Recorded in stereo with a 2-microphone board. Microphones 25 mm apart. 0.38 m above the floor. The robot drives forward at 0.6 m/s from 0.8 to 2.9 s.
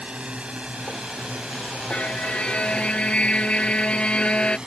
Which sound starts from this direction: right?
A drone, at 0.0 s.